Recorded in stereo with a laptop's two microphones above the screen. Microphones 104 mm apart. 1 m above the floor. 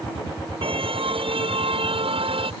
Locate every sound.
0.6 s a car horn: 65° right (ahead or behind)